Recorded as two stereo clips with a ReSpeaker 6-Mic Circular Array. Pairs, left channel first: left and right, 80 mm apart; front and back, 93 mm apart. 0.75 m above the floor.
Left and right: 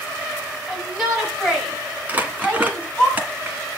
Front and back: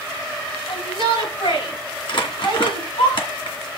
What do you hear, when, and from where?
0.7 s a shout: straight ahead, 6.5 m; by 3.1 s 5° left, 7.5 m
2.1 s crumpling: 20° right, 2 m